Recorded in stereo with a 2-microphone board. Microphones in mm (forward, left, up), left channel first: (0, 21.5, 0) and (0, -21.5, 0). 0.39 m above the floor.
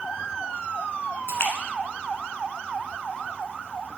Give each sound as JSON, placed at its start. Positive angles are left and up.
{"t": 1.3, "sound": "a splash", "side_deg": 70, "distance_m": 1.1}